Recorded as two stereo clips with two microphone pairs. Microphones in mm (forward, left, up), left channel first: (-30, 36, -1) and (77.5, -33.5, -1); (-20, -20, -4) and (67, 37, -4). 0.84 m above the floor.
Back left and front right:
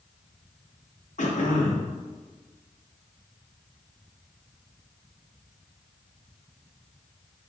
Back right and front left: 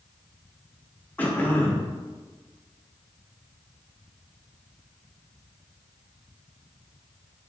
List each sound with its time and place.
1.2 s throat clearing: 135° left, 0.7 m